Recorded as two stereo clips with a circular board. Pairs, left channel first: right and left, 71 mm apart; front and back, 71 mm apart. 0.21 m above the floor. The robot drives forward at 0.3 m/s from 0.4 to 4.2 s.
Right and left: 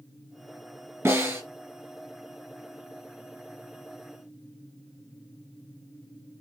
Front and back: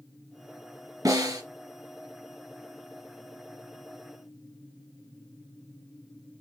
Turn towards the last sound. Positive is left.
turn(degrees=155)